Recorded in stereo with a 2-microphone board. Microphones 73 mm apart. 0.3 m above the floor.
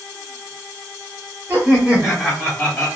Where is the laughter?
25° right (ahead or behind), 1.3 m; by 2.9 s 25° left (ahead or behind), 1.3 m.